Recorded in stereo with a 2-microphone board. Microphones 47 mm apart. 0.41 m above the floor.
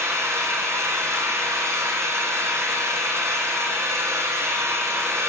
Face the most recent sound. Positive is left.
turn(degrees=-85)